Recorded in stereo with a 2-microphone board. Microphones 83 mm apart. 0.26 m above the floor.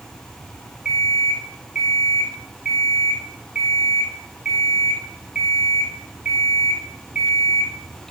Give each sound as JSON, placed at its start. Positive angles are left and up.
{"t": 0.8, "sound": "an alarm clock", "side_deg": -15, "distance_m": 4.0}